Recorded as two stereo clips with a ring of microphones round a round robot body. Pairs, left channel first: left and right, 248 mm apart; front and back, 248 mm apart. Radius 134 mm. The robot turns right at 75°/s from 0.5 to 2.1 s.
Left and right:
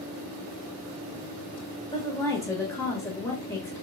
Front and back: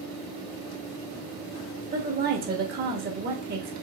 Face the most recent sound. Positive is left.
turn(degrees=160)